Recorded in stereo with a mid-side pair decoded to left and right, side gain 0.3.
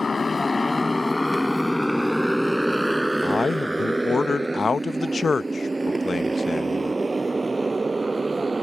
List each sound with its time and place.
0.0 s a motorcycle: 45° left; by 8.6 s 40° right
3.2 s a man speaking: 45° left